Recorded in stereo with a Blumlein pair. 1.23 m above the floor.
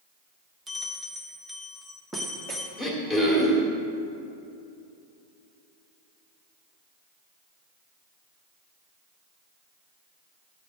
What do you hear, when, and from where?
0.7 s a bell: 10° right, 1.2 m
2.8 s throat clearing: 10° right, 1.9 m